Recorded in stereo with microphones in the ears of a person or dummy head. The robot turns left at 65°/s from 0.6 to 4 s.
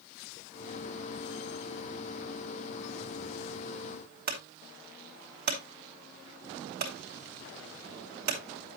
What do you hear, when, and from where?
4.3 s a clunk: 55° right (ahead or behind), 2.5 m